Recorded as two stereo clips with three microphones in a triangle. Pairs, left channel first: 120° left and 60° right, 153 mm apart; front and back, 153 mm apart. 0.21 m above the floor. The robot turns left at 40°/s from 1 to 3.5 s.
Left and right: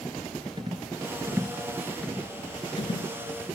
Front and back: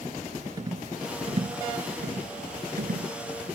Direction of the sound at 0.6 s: 115° right.